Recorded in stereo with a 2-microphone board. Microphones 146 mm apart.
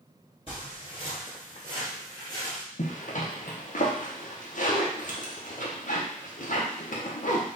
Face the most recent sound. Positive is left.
turn(degrees=60)  # may be behind; listen again after turning